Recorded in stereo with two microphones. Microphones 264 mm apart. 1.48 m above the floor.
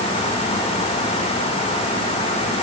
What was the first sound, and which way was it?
Only background noise.